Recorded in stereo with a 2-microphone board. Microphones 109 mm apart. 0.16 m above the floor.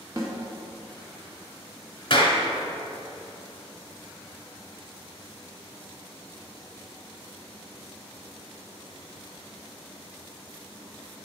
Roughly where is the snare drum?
Right.